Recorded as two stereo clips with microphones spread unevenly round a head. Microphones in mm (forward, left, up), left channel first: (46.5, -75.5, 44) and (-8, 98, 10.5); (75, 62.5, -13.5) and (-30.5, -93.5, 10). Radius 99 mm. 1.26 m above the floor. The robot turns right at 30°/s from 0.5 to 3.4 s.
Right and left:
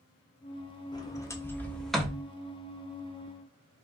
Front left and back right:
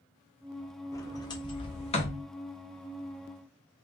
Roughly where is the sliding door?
Ahead.